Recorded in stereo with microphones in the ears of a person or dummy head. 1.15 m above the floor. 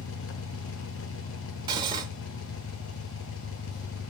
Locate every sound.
0.0 s an engine running: 80° left, 0.9 m
1.7 s cutlery clinking: 20° right (ahead or behind), 1.0 m